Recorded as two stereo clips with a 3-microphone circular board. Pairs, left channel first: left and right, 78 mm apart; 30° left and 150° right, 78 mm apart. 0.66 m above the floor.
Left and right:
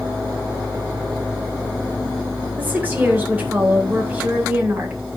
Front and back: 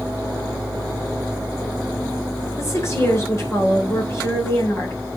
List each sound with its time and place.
2.6 s a woman speaking: 20° right, 3 m